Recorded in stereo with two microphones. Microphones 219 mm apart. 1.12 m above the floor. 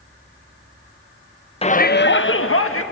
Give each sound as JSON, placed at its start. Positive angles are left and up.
{"t": 1.6, "sound": "a shout", "side_deg": 25, "distance_m": 0.7}